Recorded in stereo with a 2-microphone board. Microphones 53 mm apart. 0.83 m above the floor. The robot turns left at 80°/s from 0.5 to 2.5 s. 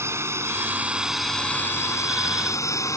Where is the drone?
125° right; by 3.0 s 75° left.